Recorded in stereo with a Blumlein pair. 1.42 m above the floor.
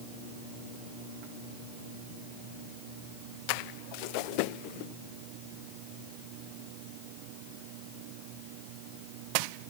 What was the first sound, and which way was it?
Only background noise.